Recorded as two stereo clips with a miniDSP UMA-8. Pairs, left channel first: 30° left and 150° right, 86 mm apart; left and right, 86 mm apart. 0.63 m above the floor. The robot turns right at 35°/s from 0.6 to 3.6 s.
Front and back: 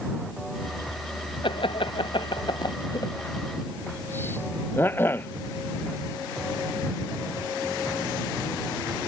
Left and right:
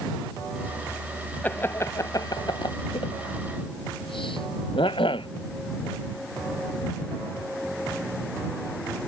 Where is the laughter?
20° left; by 5.3 s 95° left.